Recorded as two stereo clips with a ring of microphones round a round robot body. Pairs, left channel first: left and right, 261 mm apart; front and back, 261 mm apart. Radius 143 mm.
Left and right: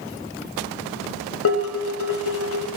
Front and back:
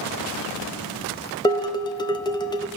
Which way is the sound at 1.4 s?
70° left.